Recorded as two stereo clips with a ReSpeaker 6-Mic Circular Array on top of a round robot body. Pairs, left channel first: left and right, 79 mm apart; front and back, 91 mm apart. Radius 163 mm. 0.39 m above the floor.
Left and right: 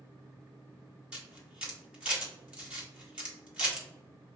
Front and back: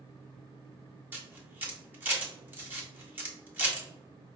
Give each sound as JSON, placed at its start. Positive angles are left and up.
{"t": 1.1, "sound": "a camera shutter", "azimuth_deg": -145, "distance_m": 1.5}